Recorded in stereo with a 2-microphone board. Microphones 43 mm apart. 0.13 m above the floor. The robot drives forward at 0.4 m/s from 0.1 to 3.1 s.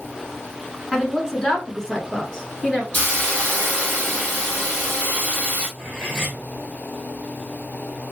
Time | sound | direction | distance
0.9 | a woman speaking | 15° left (ahead or behind) | 1.1 m
2.9 | a hiss | 30° left (ahead or behind) | 2.5 m
5.8 | cutlery clinking | 5° left (ahead or behind) | 2.5 m